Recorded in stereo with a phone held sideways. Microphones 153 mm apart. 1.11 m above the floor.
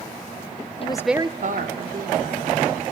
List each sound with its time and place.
0.8 s a woman speaking: 40° left (ahead or behind), 0.7 m; by 2.8 s 85° right, 3 m